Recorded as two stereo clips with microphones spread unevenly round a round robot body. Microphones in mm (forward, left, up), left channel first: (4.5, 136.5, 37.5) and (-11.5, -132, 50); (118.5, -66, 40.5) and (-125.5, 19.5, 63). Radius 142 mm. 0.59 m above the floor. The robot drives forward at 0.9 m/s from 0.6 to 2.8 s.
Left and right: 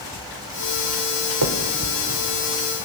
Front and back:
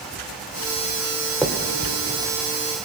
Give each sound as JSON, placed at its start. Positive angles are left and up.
{"t": 1.4, "sound": "a finger snap", "azimuth_deg": -110, "distance_m": 1.9}